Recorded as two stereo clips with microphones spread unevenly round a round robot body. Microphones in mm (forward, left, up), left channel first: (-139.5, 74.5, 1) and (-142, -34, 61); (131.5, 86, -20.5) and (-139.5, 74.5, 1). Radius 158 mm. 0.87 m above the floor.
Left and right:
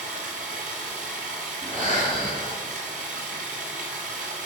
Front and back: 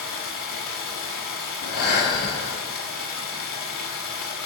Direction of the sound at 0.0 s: 60° right.